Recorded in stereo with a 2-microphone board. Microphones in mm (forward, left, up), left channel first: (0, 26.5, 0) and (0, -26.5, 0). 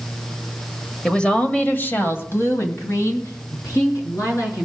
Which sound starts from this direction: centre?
A woman speaking, at 1.1 s.